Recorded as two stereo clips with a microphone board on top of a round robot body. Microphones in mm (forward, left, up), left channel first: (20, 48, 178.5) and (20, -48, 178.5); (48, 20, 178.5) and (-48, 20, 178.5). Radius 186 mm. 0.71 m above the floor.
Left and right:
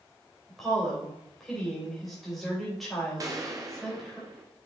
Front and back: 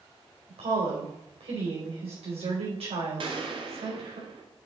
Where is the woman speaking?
Straight behind, 4 m.